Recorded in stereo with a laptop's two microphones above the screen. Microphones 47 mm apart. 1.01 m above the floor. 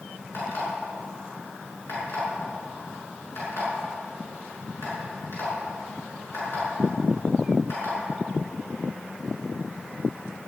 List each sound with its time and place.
0.3 s an alarm clock: 55° left (ahead or behind), 7 m